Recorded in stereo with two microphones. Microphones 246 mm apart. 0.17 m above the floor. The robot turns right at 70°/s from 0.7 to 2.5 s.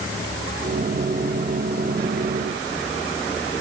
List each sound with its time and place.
Only background noise.